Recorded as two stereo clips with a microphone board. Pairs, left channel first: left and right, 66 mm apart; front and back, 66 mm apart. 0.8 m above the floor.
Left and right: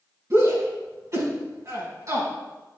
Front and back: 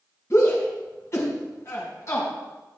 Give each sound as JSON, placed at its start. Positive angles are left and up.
{"t": 0.3, "sound": "a shout", "azimuth_deg": -45, "distance_m": 5.5}